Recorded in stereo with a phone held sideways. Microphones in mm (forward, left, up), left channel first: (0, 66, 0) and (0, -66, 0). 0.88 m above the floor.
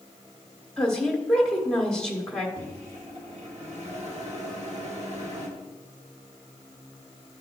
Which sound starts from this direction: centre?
A woman speaking, at 0.8 s.